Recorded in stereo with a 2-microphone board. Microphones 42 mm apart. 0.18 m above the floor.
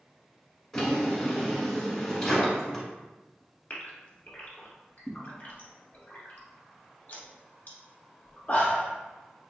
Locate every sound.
0.7 s a drawer: 5° left (ahead or behind), 1.2 m
3.7 s a gasp: 35° left (ahead or behind), 1.0 m